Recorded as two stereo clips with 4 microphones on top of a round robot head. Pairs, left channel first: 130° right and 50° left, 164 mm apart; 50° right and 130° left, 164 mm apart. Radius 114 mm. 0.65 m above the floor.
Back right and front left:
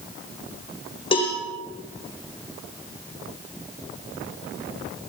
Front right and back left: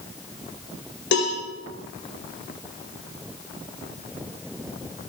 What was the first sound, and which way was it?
A cowbell, 70° right.